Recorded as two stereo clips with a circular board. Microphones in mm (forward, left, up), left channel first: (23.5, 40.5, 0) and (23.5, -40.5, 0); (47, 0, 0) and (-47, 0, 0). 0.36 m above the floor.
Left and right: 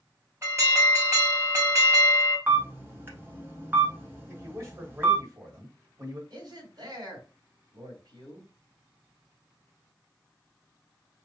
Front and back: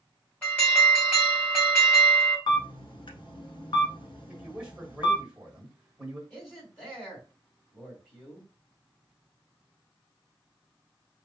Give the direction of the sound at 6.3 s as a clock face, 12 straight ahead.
2 o'clock.